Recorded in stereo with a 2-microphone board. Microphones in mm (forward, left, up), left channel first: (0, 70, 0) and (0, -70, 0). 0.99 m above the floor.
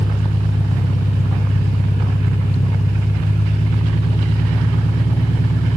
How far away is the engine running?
About 1.0 m.